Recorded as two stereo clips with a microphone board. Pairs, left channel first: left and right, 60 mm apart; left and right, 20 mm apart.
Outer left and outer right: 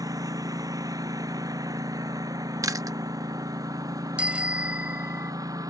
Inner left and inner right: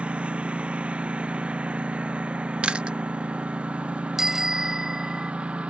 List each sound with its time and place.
0.0 s a lawn mower: 85° right; by 5.7 s 80° right
2.6 s chewing: 70° right (ahead or behind)
4.2 s a bicycle bell: 20° right (ahead or behind)